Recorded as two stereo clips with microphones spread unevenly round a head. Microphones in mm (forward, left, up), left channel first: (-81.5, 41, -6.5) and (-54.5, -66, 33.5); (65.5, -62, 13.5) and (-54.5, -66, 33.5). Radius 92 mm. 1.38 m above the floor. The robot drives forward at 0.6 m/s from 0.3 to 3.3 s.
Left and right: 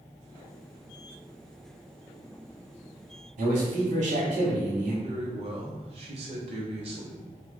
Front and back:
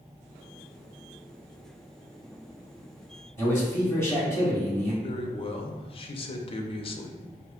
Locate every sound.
3.4 s a man speaking: 70° right, 2.0 m
5.0 s a man speaking: 40° right, 0.6 m